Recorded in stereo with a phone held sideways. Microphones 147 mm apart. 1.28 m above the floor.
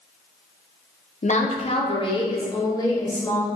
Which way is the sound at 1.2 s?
55° left (ahead or behind).